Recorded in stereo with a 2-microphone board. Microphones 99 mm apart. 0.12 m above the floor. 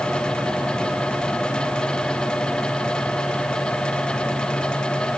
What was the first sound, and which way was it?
Only background noise.